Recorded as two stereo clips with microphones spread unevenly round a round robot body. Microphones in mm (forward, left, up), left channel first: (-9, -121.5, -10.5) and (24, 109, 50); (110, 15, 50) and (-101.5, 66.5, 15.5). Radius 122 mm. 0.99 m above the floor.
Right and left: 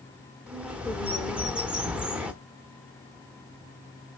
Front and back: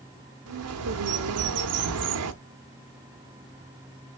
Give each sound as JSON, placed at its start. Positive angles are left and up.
{"t": 0.5, "sound": "a bird", "azimuth_deg": 160, "distance_m": 0.9}